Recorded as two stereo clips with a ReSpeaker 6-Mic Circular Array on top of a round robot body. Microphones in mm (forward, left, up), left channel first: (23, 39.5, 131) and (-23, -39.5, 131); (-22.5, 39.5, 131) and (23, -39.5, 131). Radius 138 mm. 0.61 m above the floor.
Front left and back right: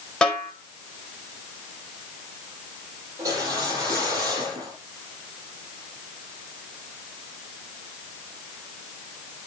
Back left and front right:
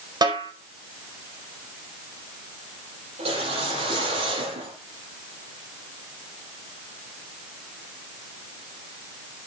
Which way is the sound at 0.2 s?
25° right.